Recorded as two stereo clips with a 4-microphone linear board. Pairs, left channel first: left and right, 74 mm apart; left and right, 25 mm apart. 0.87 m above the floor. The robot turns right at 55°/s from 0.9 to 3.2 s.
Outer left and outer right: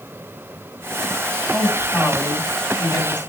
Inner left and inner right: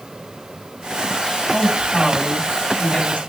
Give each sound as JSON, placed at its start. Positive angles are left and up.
{"t": 1.5, "sound": "a woman speaking", "azimuth_deg": -10, "distance_m": 7.5}